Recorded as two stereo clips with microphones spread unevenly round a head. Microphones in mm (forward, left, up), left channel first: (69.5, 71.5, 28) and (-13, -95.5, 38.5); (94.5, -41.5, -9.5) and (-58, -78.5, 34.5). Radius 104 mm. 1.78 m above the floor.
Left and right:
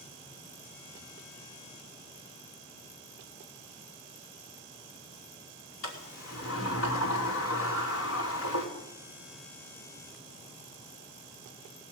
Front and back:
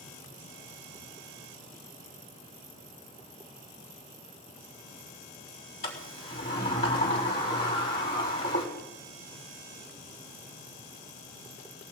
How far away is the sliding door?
About 5 m.